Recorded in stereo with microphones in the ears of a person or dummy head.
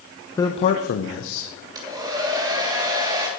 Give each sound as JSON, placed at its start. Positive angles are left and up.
{"t": 0.4, "sound": "a man speaking", "side_deg": 15, "distance_m": 0.6}
{"t": 1.8, "sound": "a hair dryer", "side_deg": -20, "distance_m": 2.5}